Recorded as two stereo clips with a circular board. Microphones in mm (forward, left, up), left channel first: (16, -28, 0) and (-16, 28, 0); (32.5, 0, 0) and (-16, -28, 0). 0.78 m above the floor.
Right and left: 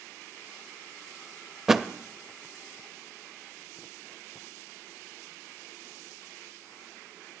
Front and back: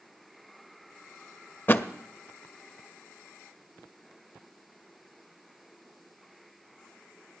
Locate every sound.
1.7 s a thud: 40° left, 0.6 m